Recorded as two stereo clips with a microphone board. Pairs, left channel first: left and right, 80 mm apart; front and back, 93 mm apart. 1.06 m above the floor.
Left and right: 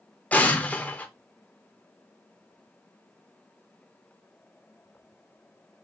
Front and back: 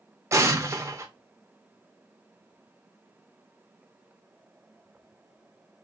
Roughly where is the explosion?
Behind left.